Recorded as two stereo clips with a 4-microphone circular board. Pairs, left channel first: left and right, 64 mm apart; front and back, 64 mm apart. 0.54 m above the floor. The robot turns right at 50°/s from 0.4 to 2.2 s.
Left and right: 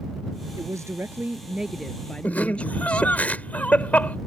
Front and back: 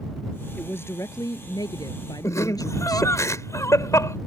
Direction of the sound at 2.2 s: 30° left.